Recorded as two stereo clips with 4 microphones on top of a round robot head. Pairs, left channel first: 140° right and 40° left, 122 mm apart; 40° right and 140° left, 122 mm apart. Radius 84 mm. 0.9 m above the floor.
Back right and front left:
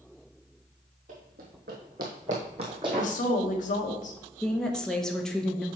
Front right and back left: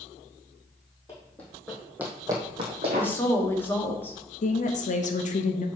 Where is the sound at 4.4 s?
50° right, 0.9 m.